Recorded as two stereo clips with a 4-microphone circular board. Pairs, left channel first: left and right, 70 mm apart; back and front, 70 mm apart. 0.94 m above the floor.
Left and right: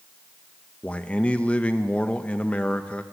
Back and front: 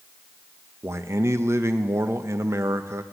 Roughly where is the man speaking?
Ahead left.